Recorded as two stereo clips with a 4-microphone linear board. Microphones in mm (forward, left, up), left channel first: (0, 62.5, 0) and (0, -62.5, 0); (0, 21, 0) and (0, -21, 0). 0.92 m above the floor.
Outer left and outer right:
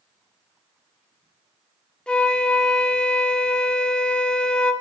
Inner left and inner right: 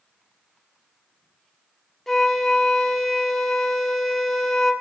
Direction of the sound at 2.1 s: 10° left (ahead or behind).